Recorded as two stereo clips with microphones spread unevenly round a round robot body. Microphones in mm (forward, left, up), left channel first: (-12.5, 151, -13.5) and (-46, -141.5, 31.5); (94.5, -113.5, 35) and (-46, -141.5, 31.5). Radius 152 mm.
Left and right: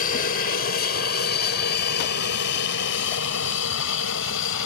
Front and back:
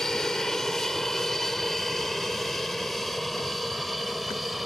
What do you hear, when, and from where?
0.0 s an aircraft: 100° left